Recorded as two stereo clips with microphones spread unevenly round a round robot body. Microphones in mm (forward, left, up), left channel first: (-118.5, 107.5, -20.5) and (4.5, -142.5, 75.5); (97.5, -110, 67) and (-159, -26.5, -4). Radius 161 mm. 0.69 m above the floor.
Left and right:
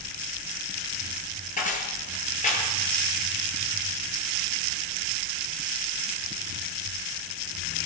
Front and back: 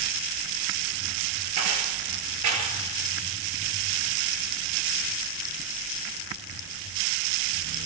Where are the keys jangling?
Straight behind, 9.5 m.